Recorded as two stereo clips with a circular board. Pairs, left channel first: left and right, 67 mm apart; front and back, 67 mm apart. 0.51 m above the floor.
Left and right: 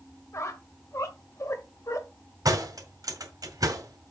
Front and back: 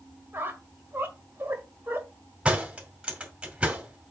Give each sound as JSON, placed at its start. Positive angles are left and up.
{"t": 0.3, "sound": "a squeak", "azimuth_deg": 125, "distance_m": 1.5}
{"t": 2.5, "sound": "a door slam", "azimuth_deg": -105, "distance_m": 2.0}